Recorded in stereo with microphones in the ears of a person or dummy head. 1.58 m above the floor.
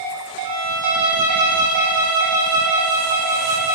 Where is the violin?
15° right (ahead or behind), 0.5 m.